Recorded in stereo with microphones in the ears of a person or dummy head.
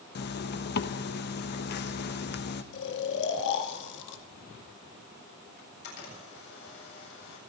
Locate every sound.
0.1 s a zipper: 55° left (ahead or behind), 1.0 m
2.7 s snoring: 65° left (ahead or behind), 2 m
5.6 s a camera shutter: 60° left (ahead or behind), 8 m